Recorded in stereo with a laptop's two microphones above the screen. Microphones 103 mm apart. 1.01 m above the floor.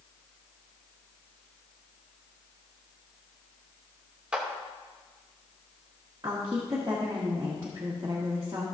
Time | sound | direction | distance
4.3 | a clap | 10° right (ahead or behind) | 1.1 m
6.2 | a woman speaking | 35° right (ahead or behind) | 1.6 m